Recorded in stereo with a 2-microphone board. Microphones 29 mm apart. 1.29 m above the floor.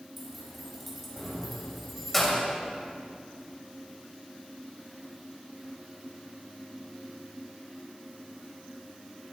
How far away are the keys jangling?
About 5 m.